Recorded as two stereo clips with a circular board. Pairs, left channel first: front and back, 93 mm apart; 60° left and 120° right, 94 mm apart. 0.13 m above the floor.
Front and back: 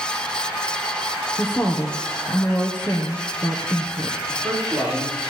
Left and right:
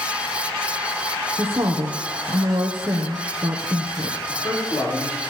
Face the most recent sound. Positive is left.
turn(degrees=105)